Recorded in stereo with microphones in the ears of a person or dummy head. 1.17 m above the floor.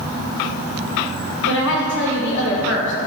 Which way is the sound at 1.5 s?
70° left (ahead or behind).